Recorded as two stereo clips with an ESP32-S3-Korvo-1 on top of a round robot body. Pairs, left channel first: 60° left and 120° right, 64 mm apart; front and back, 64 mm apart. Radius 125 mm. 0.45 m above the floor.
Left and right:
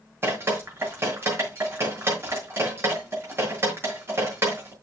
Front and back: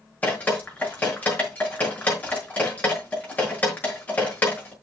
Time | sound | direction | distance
0.2 | dripping | 65° right | 6 m